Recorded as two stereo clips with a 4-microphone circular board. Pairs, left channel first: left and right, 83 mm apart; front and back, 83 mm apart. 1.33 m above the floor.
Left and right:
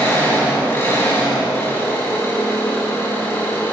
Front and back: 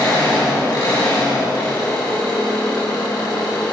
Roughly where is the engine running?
Ahead left.